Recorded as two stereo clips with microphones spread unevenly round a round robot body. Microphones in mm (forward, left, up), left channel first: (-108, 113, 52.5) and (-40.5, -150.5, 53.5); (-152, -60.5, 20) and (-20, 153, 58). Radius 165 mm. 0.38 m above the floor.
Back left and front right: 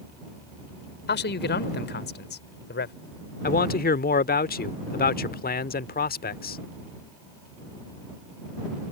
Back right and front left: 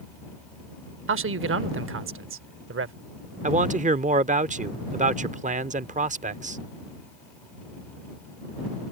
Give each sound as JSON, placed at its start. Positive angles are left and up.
{"t": 1.1, "sound": "a man speaking", "azimuth_deg": 70}
{"t": 3.4, "sound": "a man speaking", "azimuth_deg": 110}